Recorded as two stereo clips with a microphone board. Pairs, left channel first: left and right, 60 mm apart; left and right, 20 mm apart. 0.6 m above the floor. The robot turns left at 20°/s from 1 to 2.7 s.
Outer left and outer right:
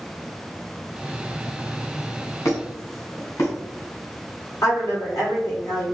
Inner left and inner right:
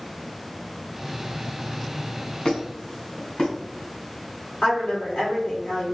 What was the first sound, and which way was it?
A squeak, 55° left (ahead or behind).